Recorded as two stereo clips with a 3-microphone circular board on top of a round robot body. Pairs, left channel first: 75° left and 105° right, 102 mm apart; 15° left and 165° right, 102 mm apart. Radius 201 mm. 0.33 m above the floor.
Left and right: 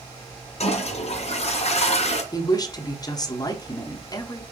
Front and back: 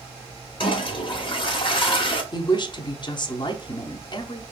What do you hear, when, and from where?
0.6 s a toilet flushing: 60° left, 1.4 m
2.3 s a woman speaking: 35° left, 1.3 m